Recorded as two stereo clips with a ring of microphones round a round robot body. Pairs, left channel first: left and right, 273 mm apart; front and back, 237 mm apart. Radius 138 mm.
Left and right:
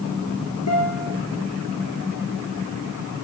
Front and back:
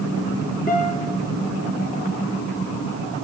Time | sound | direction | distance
0.7 | a guitar | 60° left | 9 m